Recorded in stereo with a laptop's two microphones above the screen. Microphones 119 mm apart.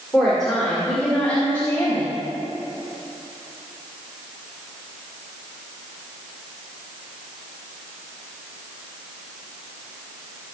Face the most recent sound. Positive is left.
turn(degrees=20)  # may be behind; listen again after turning